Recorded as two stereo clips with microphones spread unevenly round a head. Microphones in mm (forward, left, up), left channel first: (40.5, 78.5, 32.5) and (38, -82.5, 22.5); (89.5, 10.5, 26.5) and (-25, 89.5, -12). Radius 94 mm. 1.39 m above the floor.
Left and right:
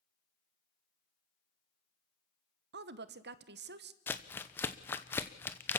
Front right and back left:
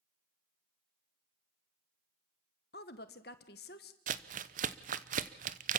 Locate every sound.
2.7 s a woman speaking: 80° right, 1.3 m
4.1 s crumpling: 170° left, 0.8 m